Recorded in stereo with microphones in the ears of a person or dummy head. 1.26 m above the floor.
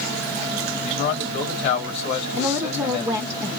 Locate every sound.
0.8 s a man speaking: 60° left (ahead or behind), 3.5 m
2.4 s a woman speaking: 15° right (ahead or behind), 0.9 m